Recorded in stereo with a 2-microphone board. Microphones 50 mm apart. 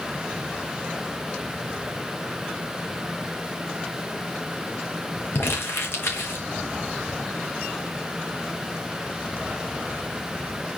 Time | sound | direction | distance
5.3 | crumpling | 55° left (ahead or behind) | 3 m